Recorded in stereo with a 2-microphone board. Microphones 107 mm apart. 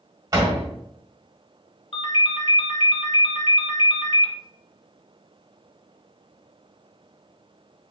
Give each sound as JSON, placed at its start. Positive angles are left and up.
{"t": 0.3, "sound": "a door slam", "side_deg": -35, "distance_m": 1.4}
{"t": 1.9, "sound": "a ringtone", "side_deg": 60, "distance_m": 0.7}